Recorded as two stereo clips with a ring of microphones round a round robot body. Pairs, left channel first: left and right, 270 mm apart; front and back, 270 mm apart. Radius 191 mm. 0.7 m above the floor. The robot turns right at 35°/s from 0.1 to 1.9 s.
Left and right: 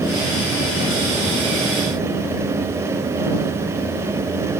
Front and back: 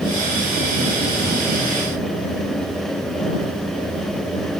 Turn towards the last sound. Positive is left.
No sound to turn to.